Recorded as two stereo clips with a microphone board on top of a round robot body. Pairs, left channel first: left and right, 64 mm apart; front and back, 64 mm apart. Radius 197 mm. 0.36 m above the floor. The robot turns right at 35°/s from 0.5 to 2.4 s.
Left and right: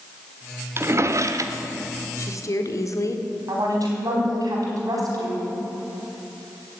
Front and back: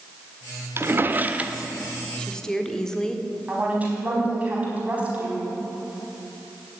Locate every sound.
0.8 s a drawer: 135° right, 1.1 m; by 1.6 s 105° right, 1.1 m
2.2 s a woman speaking: 70° left, 1.8 m; by 3.2 s 80° left, 1.8 m
3.5 s a woman speaking: 115° right, 4.5 m